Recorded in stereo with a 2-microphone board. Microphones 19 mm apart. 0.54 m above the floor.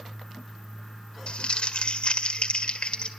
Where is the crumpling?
65° left (ahead or behind), 1.7 m.